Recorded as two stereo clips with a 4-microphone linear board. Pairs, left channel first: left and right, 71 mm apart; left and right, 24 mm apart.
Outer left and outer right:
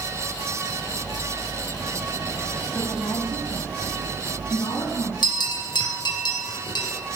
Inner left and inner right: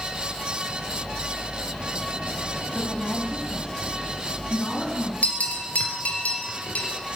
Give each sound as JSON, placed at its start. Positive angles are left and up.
{"t": 2.7, "sound": "a woman speaking", "side_deg": 45, "distance_m": 1.9}
{"t": 5.2, "sound": "a bell", "side_deg": 80, "distance_m": 3.0}